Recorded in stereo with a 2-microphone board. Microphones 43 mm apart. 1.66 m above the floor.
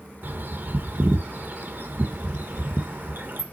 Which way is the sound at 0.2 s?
55° right (ahead or behind).